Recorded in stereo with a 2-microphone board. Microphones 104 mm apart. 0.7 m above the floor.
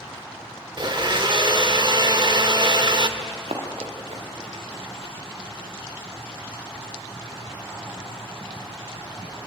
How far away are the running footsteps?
About 5 m.